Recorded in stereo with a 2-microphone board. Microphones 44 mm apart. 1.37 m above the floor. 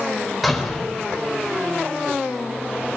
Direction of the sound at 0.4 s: Centre (ahead or behind).